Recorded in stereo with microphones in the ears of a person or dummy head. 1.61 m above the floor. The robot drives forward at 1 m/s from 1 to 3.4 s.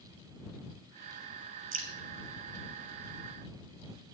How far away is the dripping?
About 1.6 m.